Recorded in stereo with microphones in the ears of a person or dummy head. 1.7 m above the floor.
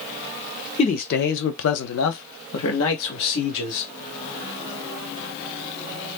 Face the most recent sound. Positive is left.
turn(degrees=70)  # may be behind; listen again after turning